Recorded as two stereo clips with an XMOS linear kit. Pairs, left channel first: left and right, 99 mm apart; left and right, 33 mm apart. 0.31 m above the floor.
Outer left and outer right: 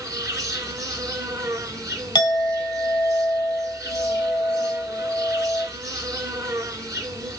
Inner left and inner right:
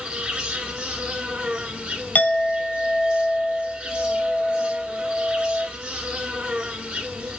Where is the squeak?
No squeak in this recording.